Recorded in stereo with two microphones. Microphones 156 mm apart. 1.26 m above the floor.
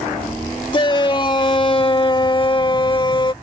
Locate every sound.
0.7 s a shout: 30° left (ahead or behind)